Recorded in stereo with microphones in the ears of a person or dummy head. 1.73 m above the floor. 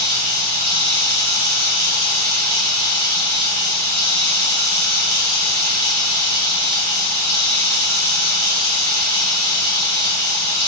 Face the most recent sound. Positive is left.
turn(degrees=-45)  # may be behind; listen again after turning